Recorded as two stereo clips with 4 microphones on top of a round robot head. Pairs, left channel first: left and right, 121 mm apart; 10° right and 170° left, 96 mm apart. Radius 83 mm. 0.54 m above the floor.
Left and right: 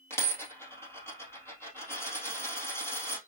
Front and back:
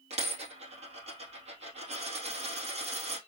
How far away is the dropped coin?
About 2.5 m.